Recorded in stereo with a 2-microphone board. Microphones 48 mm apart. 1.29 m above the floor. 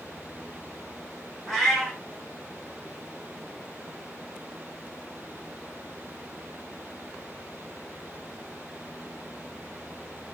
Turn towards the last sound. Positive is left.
turn(degrees=0)  # may be behind; listen again after turning